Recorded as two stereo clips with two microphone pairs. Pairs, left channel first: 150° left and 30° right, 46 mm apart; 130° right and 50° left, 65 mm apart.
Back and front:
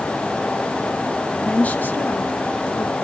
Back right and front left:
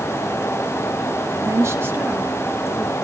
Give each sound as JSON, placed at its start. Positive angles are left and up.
{"t": 1.4, "sound": "a woman speaking", "azimuth_deg": 80, "distance_m": 1.5}